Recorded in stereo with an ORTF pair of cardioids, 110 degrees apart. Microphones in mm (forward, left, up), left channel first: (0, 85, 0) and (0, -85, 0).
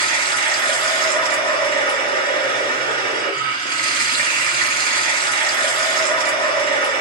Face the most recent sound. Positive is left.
turn(degrees=-65)